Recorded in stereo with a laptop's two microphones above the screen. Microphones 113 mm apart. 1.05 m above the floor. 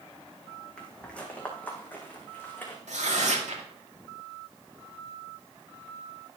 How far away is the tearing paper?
About 2 m.